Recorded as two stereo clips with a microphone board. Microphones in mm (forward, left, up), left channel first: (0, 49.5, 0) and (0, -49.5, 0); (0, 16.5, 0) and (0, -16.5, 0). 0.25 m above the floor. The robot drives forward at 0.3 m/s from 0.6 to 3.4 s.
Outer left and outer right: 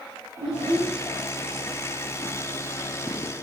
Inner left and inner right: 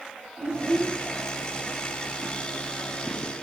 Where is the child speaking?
40° right (ahead or behind), 3.5 m.